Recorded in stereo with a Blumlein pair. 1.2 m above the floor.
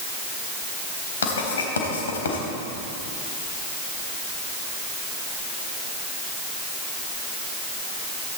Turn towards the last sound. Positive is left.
turn(degrees=65)